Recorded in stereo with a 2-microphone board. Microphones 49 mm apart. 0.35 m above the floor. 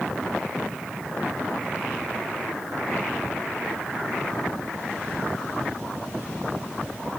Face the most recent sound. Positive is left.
No sound to turn to.